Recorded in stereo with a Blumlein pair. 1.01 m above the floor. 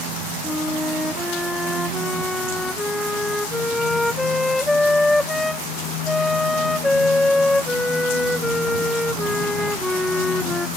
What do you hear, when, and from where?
0.4 s a flute: 5° left